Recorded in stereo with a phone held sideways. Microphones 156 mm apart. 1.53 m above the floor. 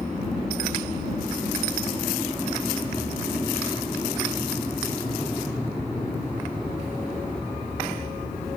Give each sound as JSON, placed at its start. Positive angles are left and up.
{"t": 0.0, "sound": "an aircraft", "side_deg": 10}